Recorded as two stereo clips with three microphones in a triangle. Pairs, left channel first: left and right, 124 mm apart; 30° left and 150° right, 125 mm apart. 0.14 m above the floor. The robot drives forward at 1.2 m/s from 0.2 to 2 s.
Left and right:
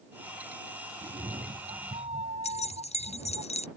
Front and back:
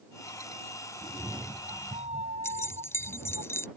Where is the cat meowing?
105° right; by 3.4 s 120° right.